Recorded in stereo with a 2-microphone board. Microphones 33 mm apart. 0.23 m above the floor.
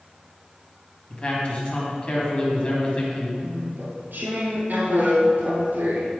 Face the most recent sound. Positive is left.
turn(degrees=-65)  # may be behind; listen again after turning